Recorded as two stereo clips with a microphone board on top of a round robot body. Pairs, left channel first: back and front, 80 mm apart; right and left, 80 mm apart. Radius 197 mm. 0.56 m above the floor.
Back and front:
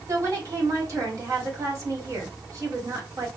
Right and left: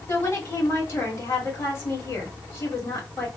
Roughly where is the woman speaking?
Ahead right.